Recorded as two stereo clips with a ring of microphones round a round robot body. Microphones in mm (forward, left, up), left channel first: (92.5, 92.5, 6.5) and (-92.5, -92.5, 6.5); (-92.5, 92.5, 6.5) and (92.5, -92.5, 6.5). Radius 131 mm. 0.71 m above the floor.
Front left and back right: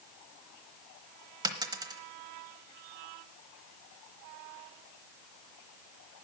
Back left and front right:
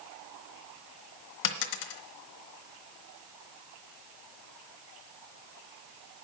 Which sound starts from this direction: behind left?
A dropped coin, at 1.4 s.